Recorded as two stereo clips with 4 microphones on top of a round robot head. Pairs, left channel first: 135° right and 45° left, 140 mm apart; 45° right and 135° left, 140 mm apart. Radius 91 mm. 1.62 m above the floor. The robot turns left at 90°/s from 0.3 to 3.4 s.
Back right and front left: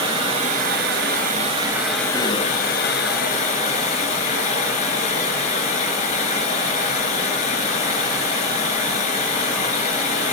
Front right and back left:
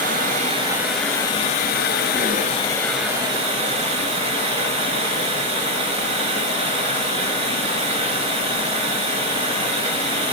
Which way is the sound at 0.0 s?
100° left.